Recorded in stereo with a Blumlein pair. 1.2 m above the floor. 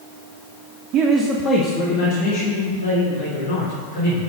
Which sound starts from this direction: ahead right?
A man speaking, at 0.9 s.